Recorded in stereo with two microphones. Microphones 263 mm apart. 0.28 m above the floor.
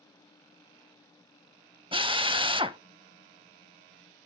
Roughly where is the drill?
Right.